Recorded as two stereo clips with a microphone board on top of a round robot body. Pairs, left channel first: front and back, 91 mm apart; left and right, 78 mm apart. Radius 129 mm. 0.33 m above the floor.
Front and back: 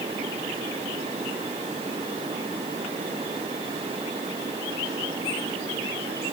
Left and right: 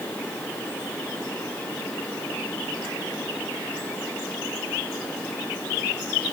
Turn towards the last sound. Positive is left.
No sound to turn to.